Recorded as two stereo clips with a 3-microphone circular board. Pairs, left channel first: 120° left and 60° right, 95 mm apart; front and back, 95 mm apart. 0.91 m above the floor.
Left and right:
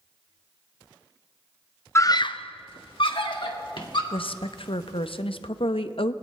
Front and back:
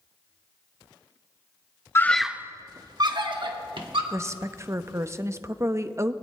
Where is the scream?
60° left, 0.6 m; by 4.0 s 150° left, 2 m.